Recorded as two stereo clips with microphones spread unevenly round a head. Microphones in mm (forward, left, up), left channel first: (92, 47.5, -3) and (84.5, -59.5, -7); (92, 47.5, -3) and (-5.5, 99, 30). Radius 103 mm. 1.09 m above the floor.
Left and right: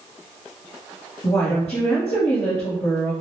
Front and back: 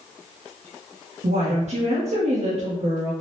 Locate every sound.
1.2 s a woman speaking: 130° left, 0.7 m